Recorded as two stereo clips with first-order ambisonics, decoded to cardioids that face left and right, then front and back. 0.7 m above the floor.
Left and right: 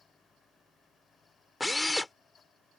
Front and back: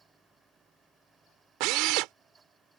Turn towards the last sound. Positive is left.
turn(degrees=170)